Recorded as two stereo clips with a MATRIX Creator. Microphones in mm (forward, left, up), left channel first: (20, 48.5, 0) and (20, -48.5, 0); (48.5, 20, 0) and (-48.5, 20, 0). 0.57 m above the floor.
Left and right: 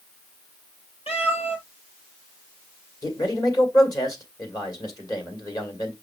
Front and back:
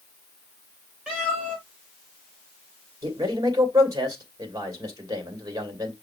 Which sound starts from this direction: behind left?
A man speaking, at 3.0 s.